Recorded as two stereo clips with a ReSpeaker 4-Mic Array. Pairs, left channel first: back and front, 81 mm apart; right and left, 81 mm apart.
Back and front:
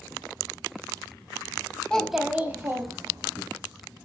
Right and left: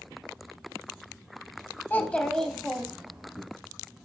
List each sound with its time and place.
1.9 s a child speaking: 115° right, 0.5 m; by 3.4 s 15° left, 0.9 m